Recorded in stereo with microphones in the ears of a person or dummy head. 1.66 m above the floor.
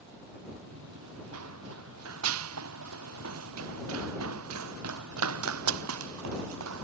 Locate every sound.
0.7 s running footsteps: 75° right (ahead or behind); by 6.8 s 85° right